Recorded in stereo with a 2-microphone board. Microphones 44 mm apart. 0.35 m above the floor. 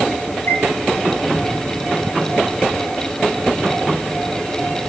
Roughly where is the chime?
Left.